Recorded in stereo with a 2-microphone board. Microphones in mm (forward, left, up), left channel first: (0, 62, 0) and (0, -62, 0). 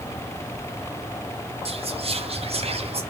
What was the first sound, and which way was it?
Whispering, 55° right (ahead or behind).